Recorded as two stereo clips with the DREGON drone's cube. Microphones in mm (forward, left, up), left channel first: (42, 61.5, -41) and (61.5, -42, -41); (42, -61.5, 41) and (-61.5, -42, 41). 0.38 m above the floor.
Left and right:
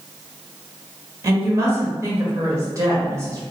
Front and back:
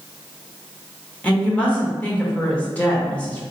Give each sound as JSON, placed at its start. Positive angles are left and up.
{"t": 1.2, "sound": "a woman speaking", "azimuth_deg": -75, "distance_m": 1.0}